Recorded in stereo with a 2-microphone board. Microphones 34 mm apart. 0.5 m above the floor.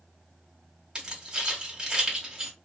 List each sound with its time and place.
0.9 s keys jangling: 20° right (ahead or behind), 1.2 m